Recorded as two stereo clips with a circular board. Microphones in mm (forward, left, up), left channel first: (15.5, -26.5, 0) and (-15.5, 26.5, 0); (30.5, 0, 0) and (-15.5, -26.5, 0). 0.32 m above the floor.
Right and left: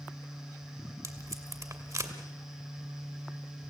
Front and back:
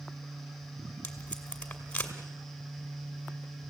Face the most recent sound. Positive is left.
turn(degrees=95)